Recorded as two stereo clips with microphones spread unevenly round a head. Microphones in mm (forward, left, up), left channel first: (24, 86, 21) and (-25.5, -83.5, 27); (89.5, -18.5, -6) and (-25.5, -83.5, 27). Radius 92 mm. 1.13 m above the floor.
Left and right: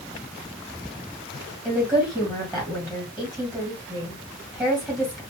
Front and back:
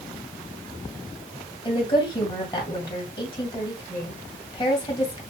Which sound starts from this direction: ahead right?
A woman speaking, at 1.6 s.